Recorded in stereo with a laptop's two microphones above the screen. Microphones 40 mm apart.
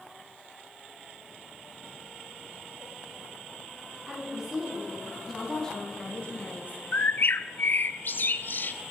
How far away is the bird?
About 0.5 m.